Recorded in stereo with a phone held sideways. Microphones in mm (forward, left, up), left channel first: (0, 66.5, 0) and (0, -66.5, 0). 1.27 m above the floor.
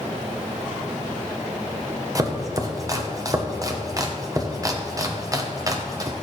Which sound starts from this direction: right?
Chopping, at 2.1 s.